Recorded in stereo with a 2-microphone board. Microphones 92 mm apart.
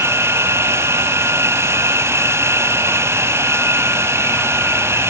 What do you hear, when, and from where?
0.0 s an insect: 30° right (ahead or behind)